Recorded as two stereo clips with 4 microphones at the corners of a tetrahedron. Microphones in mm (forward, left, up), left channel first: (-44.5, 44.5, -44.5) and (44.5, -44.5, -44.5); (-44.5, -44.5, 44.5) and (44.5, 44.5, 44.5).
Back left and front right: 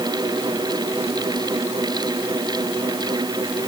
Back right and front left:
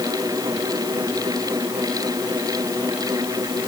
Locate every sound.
Only background noise.